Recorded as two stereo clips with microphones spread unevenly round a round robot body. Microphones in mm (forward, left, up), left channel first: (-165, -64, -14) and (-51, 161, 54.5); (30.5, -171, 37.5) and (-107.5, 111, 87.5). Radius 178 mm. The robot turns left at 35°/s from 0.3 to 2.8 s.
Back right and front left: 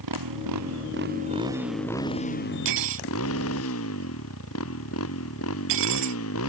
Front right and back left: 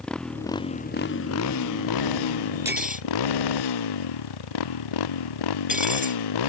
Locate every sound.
0.0 s a motorcycle: 25° left; by 6.5 s 65° right
2.6 s cutlery clinking: 35° left; by 6.2 s 30° left